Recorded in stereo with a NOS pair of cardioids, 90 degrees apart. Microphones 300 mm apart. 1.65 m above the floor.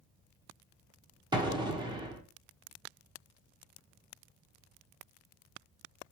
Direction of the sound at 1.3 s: 15° right.